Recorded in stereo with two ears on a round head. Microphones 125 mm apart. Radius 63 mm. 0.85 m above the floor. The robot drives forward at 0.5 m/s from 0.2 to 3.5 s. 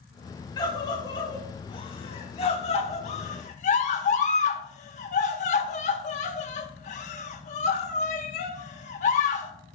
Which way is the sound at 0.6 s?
30° left (ahead or behind).